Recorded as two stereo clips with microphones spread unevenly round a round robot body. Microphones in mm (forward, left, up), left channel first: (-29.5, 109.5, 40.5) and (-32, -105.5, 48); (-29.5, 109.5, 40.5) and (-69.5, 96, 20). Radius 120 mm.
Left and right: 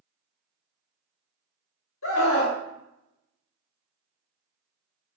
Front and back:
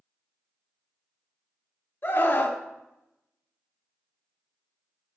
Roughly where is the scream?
Ahead left.